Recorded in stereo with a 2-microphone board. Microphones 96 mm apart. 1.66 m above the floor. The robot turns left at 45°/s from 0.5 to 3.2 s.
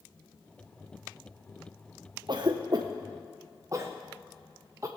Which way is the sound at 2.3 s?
50° right (ahead or behind).